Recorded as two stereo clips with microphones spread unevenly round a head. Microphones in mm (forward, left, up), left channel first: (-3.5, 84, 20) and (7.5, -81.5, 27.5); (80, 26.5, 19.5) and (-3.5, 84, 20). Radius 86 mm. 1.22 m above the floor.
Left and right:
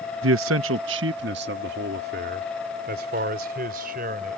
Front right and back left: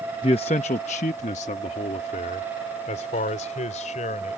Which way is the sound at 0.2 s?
100° right.